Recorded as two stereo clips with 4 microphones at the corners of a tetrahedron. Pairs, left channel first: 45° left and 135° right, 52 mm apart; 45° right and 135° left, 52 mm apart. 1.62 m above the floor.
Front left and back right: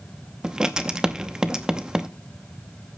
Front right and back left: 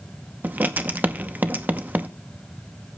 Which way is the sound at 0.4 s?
160° left.